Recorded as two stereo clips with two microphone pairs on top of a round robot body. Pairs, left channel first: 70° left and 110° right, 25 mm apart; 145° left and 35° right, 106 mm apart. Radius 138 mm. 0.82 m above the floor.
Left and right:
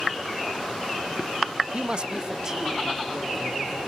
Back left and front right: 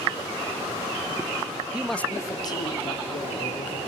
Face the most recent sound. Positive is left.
turn(degrees=175)